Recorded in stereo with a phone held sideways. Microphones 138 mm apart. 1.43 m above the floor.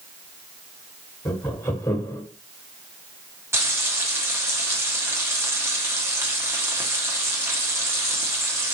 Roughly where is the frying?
Centre.